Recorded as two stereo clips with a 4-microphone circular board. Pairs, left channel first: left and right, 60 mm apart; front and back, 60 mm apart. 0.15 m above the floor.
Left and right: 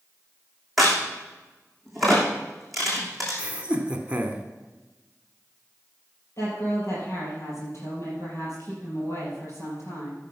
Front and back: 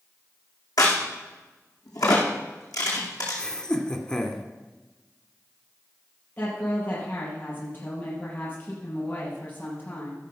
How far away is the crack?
About 3 m.